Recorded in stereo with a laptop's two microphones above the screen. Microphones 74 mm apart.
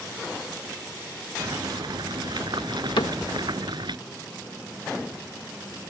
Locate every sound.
1.4 s boiling: 70° right (ahead or behind)
3.0 s a cupboard door: 70° left (ahead or behind)